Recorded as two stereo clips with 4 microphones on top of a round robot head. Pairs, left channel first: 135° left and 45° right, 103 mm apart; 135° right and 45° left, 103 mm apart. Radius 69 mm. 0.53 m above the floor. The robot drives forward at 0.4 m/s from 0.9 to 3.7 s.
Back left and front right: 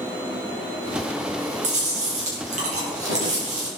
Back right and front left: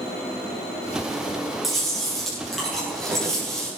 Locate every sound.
1.6 s chewing: 45° right, 8 m